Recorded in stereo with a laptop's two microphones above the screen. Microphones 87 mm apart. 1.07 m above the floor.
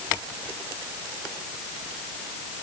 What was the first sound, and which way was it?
Only background noise.